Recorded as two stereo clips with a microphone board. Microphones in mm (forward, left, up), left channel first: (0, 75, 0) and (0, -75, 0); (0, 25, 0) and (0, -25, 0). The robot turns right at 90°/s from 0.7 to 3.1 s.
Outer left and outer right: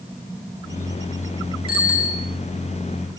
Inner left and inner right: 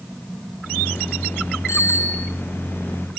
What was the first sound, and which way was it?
A bicycle bell, 90° left.